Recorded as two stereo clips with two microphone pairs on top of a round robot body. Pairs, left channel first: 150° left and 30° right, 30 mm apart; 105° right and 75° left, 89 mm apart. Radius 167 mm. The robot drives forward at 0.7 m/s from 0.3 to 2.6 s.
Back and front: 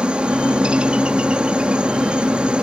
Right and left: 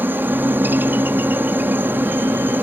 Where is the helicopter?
10° left.